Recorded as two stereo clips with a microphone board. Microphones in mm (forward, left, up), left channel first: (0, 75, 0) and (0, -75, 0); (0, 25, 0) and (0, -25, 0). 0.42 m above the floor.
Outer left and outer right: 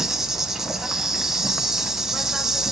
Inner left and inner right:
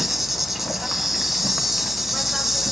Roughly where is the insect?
Centre.